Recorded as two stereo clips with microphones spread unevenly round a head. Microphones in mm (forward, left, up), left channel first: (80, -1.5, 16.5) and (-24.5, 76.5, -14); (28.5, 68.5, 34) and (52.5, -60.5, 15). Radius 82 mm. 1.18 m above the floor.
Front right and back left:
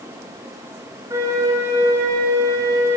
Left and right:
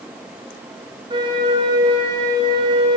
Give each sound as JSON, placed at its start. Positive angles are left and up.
{"t": 1.1, "sound": "a flute", "azimuth_deg": -140, "distance_m": 1.6}